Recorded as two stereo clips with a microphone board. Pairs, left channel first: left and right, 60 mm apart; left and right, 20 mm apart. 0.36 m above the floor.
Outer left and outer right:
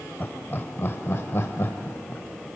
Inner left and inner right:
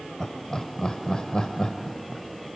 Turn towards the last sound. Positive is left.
turn(degrees=35)  # may be behind; listen again after turning